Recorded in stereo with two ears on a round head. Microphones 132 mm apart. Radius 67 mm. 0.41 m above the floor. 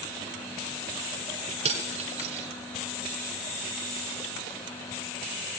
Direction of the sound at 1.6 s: 50° right (ahead or behind).